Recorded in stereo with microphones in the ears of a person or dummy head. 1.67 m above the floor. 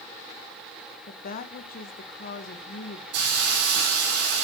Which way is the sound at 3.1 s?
65° right (ahead or behind).